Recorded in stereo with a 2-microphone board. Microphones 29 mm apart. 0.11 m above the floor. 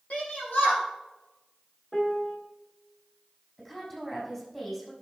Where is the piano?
20° left (ahead or behind), 1.4 m.